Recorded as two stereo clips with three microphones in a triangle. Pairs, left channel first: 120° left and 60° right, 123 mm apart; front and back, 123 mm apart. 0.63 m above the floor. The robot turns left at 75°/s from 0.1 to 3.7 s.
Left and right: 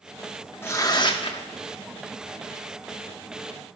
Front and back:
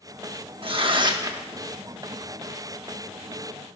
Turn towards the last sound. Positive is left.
turn(degrees=-50)